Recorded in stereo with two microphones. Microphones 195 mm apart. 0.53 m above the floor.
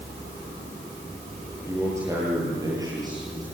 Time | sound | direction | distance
1.7 | a man speaking | 15° right (ahead or behind) | 10 m